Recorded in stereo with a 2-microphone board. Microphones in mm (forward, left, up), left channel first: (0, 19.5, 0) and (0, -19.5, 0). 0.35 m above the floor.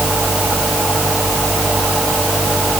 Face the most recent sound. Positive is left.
No sound to turn to.